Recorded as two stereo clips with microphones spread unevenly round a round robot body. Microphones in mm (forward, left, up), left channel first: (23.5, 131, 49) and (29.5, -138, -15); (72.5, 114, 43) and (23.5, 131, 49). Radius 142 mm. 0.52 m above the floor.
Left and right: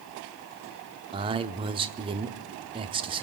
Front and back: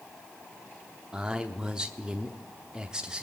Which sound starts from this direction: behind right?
A man speaking, at 1.1 s.